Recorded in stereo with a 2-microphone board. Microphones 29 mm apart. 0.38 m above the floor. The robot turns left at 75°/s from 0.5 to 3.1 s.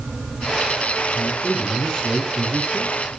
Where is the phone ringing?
No phone ringing in this recording.